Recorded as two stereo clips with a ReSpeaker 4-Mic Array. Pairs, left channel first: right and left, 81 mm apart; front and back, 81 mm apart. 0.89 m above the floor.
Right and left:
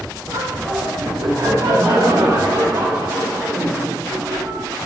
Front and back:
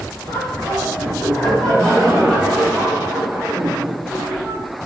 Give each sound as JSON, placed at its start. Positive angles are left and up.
{"t": 0.3, "sound": "laughter", "azimuth_deg": 55, "distance_m": 2.0}